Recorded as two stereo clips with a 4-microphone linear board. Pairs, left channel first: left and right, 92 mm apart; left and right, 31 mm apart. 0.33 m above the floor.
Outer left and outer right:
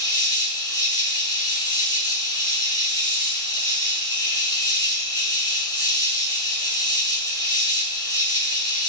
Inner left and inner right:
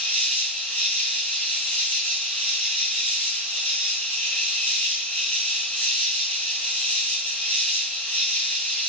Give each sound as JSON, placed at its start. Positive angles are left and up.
{"t": 0.0, "sound": "an insect", "side_deg": 35, "distance_m": 5.5}